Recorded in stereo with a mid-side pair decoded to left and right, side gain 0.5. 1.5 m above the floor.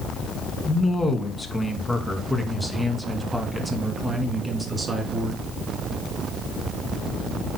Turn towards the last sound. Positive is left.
turn(degrees=-30)